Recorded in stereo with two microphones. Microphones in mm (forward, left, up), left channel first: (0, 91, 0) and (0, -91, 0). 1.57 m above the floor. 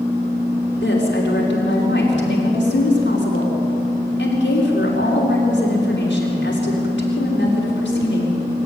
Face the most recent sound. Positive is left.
turn(degrees=85)